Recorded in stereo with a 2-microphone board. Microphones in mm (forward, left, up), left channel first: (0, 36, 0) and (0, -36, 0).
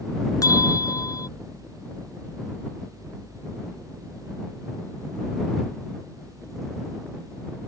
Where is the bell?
50° left (ahead or behind).